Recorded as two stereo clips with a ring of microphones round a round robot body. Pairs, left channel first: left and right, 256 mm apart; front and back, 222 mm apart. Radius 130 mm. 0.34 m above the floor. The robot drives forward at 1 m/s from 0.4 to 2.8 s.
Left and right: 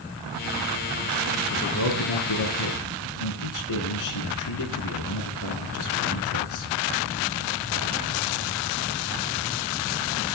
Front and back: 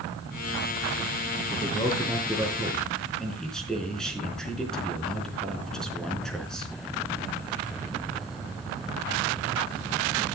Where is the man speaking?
70° left, 4 m; by 6.7 s 85° left, 4 m.